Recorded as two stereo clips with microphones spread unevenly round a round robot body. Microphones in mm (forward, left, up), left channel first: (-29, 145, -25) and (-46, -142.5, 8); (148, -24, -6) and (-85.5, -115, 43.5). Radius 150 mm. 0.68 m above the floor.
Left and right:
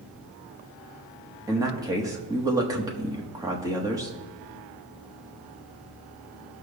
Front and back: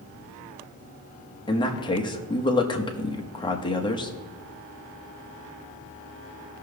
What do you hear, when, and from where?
1.5 s a man speaking: 15° right, 1.1 m